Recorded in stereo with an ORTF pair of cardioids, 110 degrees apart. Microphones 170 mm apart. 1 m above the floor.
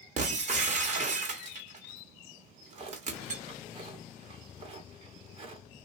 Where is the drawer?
35° right, 0.9 m.